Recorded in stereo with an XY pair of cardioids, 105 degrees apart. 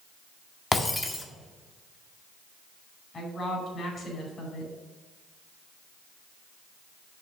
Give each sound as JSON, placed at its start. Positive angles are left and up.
{"t": 0.7, "sound": "breaking glass", "azimuth_deg": 20, "distance_m": 1.6}
{"t": 3.1, "sound": "a woman speaking", "azimuth_deg": 45, "distance_m": 4.5}